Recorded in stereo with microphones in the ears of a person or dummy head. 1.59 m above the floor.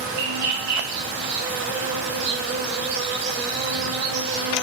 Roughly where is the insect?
Right.